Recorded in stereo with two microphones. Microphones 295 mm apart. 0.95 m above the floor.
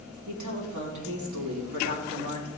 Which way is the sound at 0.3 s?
75° right (ahead or behind).